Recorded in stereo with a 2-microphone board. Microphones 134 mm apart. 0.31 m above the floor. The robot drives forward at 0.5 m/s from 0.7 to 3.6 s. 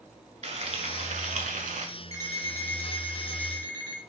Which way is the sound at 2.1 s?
25° left (ahead or behind).